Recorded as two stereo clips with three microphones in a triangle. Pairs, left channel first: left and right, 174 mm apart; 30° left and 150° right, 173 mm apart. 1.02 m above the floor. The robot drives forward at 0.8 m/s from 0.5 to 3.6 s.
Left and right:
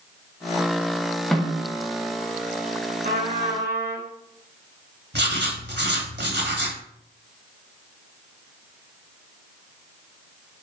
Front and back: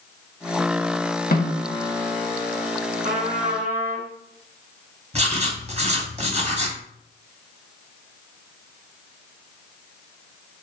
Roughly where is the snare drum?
Ahead.